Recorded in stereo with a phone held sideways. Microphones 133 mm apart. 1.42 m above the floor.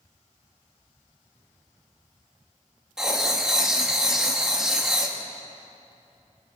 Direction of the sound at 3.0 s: 5° right (ahead or behind).